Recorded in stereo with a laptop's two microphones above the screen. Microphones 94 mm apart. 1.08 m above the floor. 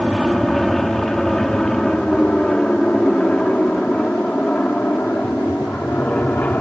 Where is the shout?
I don't hear a shout.